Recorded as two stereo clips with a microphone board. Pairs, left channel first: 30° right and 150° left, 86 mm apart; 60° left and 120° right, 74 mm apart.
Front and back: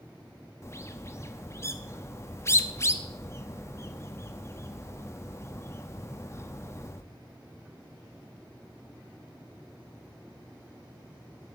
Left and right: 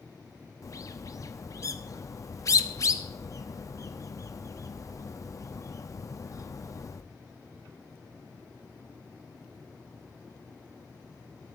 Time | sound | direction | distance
0.6 | a bird | 25° left | 0.8 m